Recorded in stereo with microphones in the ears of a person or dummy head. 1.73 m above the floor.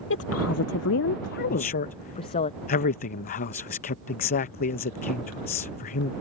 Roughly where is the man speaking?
Left.